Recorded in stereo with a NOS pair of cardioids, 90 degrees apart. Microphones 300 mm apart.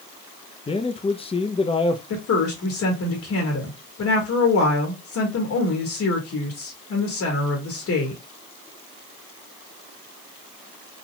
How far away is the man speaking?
About 0.6 m.